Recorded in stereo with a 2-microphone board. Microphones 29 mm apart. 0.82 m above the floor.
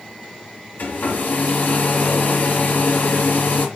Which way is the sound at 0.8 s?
65° left (ahead or behind).